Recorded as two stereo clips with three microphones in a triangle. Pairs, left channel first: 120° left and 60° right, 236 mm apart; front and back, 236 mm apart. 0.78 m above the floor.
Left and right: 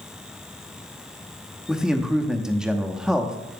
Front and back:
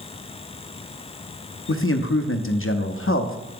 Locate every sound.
1.7 s a man speaking: 25° left, 0.8 m